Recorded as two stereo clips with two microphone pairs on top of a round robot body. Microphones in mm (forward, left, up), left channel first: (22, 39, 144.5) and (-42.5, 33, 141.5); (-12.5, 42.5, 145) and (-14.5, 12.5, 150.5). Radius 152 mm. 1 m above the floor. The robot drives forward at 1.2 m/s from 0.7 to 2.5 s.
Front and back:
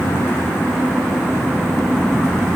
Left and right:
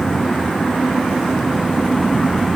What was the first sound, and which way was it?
Only background noise.